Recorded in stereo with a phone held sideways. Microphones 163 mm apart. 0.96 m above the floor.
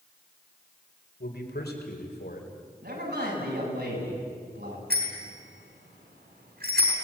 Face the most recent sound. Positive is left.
turn(degrees=-85)